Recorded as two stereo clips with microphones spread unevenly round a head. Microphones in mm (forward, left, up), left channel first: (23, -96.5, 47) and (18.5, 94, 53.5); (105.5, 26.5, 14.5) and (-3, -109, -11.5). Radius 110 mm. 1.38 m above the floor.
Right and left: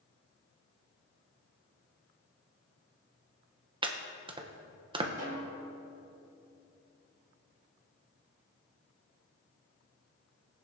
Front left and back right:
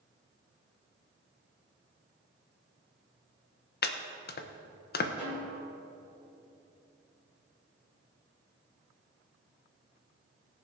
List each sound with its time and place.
3.8 s chopping: 25° left, 0.8 m
5.2 s a snare drum: 140° left, 2 m